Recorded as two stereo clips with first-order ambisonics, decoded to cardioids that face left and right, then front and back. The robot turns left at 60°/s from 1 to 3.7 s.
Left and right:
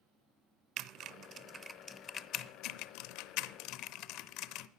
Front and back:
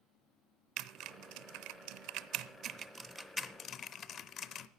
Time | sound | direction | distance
0.8 | typing on a keyboard | 140° right | 0.6 m